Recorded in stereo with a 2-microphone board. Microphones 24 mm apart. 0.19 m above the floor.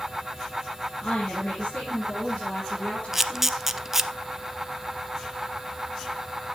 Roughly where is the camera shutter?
Centre.